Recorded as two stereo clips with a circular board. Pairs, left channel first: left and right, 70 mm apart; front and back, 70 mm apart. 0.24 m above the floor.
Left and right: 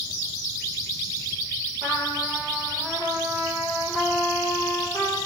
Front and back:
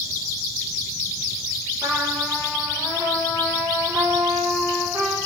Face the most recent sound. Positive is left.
turn(degrees=-140)